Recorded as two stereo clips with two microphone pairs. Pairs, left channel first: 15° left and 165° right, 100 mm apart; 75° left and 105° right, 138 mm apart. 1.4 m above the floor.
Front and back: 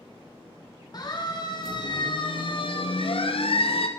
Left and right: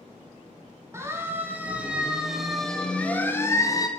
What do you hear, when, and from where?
0.9 s a siren: 35° right, 2.5 m; by 3.9 s 15° left, 1.6 m